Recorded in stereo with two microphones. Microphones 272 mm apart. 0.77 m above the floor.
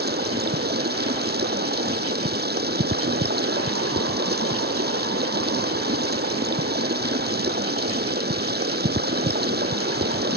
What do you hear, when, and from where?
0.0 s running water: 35° right (ahead or behind)